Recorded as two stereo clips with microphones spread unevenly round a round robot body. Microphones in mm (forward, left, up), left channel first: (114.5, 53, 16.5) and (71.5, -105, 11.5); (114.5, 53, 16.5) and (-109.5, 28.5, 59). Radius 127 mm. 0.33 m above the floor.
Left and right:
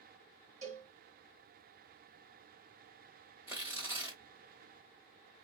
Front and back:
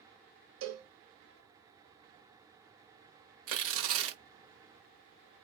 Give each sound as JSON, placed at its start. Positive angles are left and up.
{"t": 0.6, "sound": "a cowbell", "azimuth_deg": -160, "distance_m": 1.2}
{"t": 3.5, "sound": "tearing paper", "azimuth_deg": 180, "distance_m": 1.0}